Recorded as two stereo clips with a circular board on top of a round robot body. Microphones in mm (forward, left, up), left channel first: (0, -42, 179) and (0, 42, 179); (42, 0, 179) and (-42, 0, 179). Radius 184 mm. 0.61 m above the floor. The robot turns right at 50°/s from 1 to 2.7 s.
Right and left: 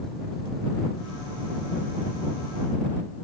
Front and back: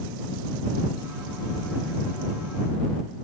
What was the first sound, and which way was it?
Only background noise.